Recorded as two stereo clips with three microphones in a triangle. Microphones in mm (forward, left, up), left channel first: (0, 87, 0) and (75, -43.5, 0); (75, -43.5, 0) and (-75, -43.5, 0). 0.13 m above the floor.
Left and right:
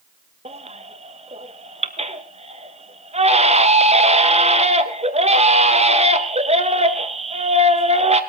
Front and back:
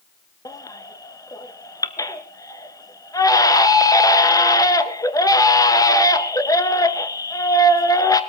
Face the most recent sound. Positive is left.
turn(degrees=-60)